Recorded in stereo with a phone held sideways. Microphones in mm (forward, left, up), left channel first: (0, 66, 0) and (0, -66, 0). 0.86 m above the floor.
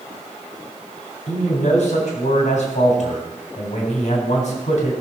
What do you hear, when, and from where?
1.3 s a man speaking: 70° left (ahead or behind), 4 m